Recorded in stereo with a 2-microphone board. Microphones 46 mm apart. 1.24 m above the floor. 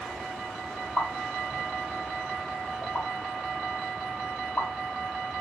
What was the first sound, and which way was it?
A pop, 45° left (ahead or behind).